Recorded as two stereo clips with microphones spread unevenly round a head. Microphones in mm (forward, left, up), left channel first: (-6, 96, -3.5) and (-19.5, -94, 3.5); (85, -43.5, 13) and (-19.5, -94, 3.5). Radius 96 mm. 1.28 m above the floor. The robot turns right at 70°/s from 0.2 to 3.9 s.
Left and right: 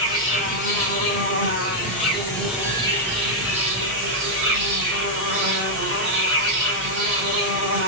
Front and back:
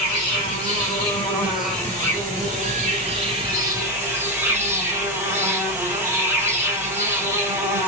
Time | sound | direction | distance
0.0 | an insect | 15° left | 3.5 m